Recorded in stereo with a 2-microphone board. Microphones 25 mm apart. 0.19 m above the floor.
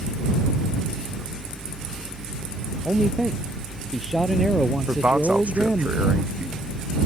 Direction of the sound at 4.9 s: 65° right (ahead or behind).